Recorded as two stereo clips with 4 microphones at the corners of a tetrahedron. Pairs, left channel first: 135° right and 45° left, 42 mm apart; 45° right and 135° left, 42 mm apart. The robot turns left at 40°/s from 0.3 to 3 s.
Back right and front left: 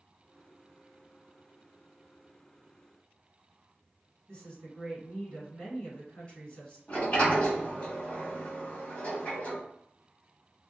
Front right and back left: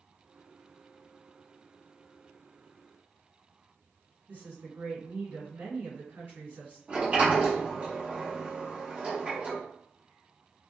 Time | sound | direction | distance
4.3 | a woman speaking | 155° left | 1.9 m
6.9 | a sliding door | straight behind | 1.4 m